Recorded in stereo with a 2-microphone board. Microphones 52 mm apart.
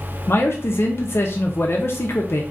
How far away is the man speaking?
About 0.5 m.